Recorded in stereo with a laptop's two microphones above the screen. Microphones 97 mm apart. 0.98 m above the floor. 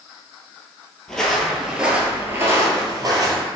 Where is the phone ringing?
I don't hear a phone ringing.